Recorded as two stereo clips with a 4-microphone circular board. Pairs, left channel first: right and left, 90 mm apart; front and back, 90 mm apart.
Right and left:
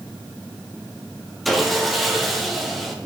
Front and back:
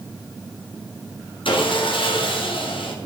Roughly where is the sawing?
Ahead.